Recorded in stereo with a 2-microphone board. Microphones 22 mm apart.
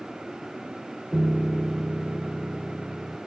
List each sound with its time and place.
1.1 s a piano: 25° right (ahead or behind)